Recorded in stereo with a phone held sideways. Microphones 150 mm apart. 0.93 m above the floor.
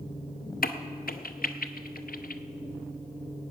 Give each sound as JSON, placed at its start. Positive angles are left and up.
{"t": 0.6, "sound": "a crack", "side_deg": 70, "distance_m": 0.6}